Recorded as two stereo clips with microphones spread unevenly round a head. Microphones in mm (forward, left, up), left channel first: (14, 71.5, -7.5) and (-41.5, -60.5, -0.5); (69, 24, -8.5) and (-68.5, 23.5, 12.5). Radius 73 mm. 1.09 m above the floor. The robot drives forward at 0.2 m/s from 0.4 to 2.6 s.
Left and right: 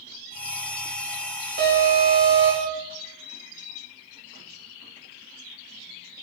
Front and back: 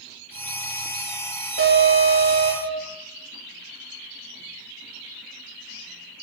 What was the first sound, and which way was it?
An alarm, 130° right.